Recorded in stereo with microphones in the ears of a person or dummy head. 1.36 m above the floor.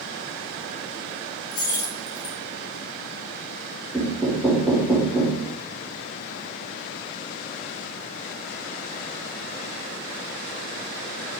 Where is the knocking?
5° left (ahead or behind), 2 m.